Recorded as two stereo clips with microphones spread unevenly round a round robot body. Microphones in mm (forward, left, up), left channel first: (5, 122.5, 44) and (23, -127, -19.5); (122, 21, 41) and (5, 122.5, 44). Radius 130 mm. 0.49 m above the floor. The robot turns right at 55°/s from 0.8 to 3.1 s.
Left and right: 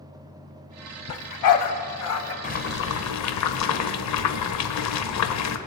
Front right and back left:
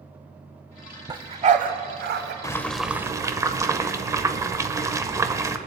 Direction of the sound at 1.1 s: 70° left.